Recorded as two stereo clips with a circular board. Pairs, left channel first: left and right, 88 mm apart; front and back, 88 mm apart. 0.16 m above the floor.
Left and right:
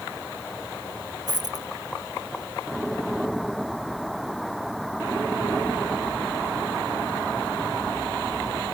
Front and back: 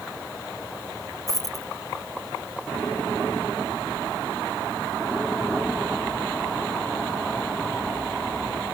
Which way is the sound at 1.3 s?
50° right.